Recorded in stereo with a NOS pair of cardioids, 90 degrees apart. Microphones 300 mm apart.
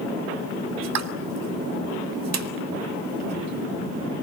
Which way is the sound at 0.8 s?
65° right.